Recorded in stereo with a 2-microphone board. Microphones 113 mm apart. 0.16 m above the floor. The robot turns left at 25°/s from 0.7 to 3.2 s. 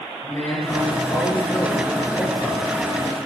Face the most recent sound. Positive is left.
turn(degrees=90)